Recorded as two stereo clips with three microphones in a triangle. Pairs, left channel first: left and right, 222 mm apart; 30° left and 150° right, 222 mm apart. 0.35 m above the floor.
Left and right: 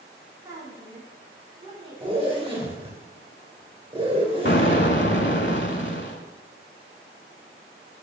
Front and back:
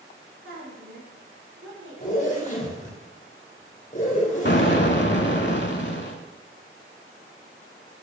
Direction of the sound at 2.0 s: 25° right.